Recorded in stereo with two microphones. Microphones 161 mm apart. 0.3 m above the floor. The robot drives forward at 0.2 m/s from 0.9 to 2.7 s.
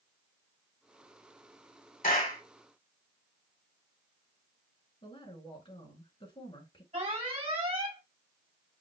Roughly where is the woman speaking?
Left.